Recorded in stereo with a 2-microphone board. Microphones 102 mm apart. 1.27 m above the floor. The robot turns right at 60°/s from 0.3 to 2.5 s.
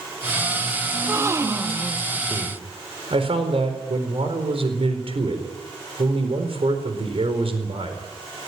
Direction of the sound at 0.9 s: 25° right (ahead or behind).